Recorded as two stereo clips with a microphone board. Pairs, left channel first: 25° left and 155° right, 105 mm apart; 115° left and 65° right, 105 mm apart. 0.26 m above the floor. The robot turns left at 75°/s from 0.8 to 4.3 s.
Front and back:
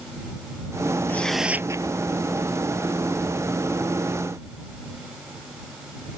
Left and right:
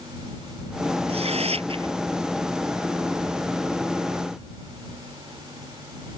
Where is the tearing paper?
50° right; by 1.9 s 115° right.